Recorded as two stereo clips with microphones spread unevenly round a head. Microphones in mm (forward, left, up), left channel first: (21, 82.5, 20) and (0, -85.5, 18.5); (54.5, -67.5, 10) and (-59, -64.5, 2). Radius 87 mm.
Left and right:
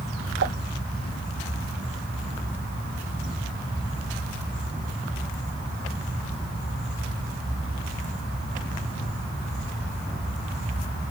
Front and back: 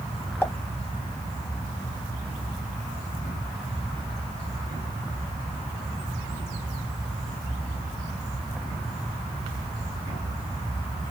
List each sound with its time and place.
0.4 s a pop: 70° right, 1.0 m